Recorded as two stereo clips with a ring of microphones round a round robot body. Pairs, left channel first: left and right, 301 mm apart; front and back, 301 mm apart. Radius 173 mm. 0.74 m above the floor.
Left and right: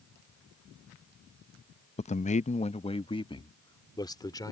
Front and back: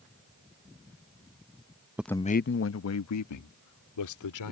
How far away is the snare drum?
No snare drum in this recording.